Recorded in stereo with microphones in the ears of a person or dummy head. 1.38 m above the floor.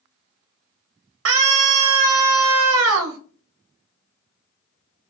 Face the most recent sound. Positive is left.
turn(degrees=-70)  # may be behind; listen again after turning